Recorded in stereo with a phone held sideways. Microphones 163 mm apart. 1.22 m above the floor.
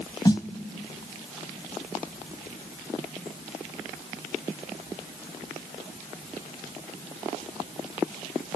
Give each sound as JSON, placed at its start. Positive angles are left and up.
{"t": 0.2, "sound": "a snare drum", "side_deg": 30, "distance_m": 1.2}